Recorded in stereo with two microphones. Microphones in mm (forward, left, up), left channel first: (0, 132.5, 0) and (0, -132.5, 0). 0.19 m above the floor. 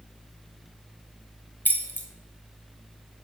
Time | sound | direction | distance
1.6 | keys jangling | 5° left (ahead or behind) | 0.8 m